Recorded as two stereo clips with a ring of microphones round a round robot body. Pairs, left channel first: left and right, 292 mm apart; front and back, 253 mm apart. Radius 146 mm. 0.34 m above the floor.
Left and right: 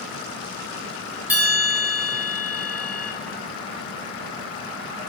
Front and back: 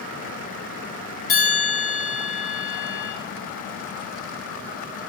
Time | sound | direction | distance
1.3 | a bell | 10° right | 1.6 m